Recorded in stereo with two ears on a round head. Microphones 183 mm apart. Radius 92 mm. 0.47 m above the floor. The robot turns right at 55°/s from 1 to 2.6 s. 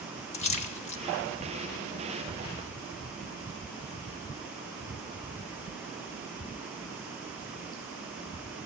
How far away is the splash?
About 0.6 m.